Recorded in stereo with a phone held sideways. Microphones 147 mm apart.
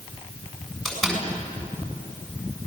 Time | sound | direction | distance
0.8 | a door slam | centre (ahead or behind) | 7 m